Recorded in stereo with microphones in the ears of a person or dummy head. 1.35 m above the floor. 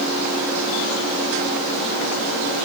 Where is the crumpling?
No crumpling in this recording.